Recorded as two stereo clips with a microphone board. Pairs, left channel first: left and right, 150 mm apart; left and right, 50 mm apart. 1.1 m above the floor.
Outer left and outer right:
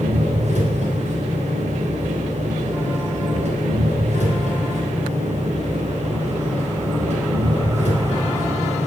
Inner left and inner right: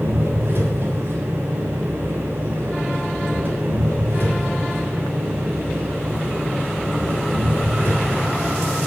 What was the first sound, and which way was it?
An engine running, 55° right (ahead or behind).